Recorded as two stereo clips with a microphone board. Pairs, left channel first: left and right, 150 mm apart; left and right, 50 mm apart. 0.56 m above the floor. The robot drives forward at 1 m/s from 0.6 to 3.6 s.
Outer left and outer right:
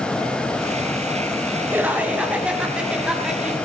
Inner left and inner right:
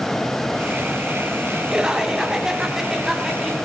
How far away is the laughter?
About 1.4 m.